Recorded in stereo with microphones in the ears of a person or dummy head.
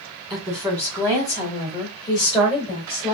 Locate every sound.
0.3 s a woman speaking: 5° left (ahead or behind), 1.8 m; by 3.1 s 30° left (ahead or behind), 3 m